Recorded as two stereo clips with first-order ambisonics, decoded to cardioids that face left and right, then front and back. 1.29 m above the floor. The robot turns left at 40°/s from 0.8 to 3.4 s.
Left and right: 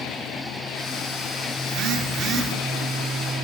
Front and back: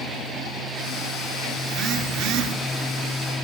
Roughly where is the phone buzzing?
Behind right.